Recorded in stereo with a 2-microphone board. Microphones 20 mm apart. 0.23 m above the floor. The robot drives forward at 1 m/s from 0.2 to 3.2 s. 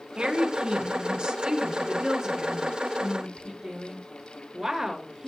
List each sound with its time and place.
0.2 s a woman speaking: 60° right (ahead or behind), 2.5 m; by 5.3 s 35° right (ahead or behind), 3.5 m